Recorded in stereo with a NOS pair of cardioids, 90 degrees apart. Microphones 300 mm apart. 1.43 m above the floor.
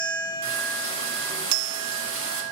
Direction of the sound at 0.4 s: 45° right.